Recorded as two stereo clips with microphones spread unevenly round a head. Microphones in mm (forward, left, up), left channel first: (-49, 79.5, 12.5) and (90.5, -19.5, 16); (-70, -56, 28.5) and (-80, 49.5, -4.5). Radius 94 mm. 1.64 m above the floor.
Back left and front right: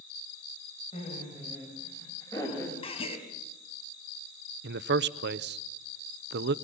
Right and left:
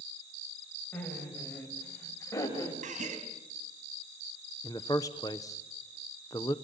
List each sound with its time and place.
0.9 s laughter: 155° right, 9 m; by 2.7 s 135° right, 8.5 m
2.8 s a gasp: 90° left, 4 m
4.6 s a man speaking: 20° right, 0.9 m